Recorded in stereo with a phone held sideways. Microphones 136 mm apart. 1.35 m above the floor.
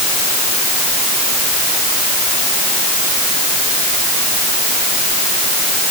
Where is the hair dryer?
No hair dryer in this recording.